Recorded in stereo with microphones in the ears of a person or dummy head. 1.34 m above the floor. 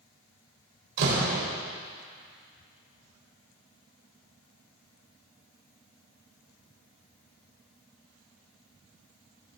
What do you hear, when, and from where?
1.0 s a door slam: 65° right (ahead or behind), 4.5 m